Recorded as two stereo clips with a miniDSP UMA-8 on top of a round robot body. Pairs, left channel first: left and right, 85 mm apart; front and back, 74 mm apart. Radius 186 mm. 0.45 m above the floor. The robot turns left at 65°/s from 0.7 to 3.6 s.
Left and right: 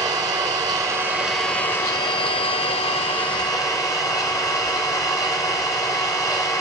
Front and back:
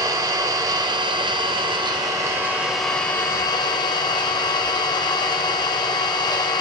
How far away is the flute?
No flute in this recording.